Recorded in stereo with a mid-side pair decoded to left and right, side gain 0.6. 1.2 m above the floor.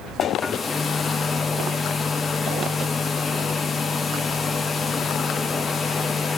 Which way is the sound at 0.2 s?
20° left.